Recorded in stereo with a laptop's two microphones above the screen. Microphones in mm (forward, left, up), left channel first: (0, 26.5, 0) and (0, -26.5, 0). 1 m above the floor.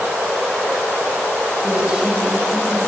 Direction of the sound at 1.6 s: 20° right (ahead or behind).